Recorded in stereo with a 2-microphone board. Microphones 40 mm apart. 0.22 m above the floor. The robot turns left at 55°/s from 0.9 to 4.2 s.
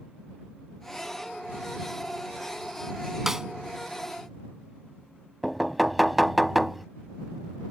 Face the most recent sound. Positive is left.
turn(degrees=0)  # may be behind; listen again after turning